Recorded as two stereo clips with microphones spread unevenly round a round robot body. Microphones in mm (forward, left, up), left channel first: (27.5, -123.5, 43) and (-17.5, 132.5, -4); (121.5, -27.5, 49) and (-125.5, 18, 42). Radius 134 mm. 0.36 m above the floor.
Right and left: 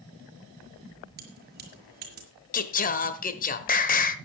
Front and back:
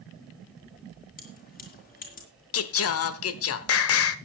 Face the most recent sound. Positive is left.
turn(degrees=-20)